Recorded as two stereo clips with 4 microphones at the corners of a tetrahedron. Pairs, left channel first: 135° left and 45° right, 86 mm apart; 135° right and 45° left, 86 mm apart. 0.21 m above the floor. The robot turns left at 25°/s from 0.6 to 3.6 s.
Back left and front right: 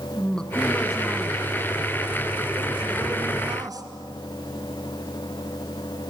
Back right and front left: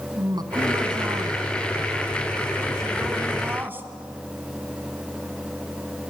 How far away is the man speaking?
About 1.6 m.